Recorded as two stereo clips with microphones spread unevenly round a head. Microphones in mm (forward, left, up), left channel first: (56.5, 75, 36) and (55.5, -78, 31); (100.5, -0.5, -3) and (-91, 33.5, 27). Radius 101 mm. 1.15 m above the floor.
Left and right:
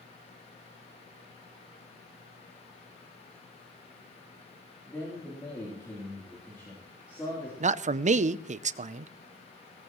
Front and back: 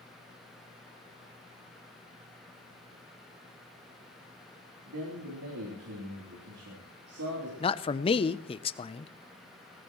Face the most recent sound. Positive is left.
turn(degrees=-60)